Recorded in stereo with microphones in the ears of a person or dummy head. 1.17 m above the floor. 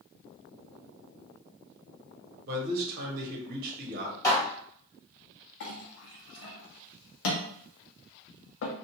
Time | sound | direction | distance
2.5 | a man speaking | 50° right (ahead or behind) | 1.1 m
4.2 | dishes clattering | 30° left (ahead or behind) | 1.4 m
5.6 | a clink | 65° left (ahead or behind) | 0.7 m